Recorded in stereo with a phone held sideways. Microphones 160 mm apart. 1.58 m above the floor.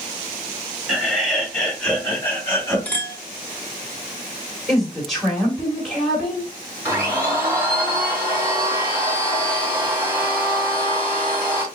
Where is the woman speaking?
Centre (ahead or behind), 3.5 m.